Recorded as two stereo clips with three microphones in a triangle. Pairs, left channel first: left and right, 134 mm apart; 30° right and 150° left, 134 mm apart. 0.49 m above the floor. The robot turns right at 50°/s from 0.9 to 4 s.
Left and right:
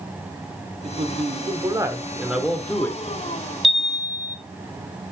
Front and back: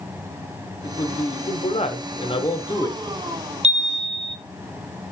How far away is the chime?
About 0.6 m.